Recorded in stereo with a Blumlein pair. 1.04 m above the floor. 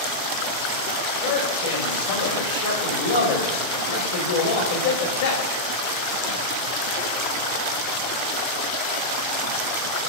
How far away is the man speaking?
About 4.5 m.